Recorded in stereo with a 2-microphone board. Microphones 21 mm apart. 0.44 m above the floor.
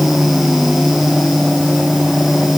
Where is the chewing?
I don't hear chewing.